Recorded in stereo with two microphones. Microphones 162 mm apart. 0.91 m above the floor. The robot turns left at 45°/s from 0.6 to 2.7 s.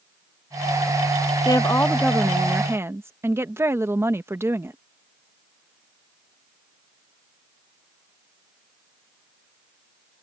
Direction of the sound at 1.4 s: 35° left.